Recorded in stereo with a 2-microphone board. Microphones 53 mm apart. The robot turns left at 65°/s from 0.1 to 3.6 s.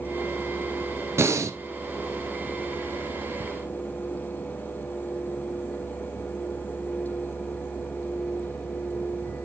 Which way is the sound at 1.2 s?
60° right (ahead or behind).